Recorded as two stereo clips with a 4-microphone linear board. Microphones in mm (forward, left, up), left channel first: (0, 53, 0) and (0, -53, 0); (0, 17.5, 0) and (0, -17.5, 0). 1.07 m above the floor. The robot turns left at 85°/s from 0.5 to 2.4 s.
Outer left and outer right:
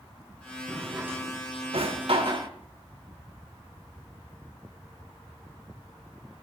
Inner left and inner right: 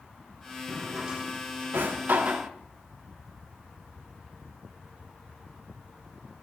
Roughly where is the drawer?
Centre.